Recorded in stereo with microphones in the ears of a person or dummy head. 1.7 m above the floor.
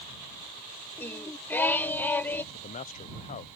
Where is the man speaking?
35° left (ahead or behind).